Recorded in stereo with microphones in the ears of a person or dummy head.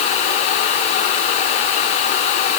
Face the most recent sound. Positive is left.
No sound to turn to.